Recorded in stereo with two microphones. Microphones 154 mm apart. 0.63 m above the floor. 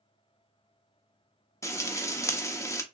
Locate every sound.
1.6 s frying: 20° left (ahead or behind), 0.7 m